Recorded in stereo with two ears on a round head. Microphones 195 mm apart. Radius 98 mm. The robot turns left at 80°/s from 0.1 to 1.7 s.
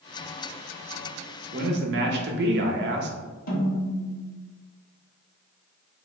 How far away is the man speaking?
About 0.5 m.